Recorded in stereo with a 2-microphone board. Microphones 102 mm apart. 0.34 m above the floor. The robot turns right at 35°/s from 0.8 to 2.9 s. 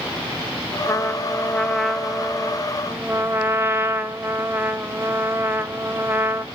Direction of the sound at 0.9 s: 140° left.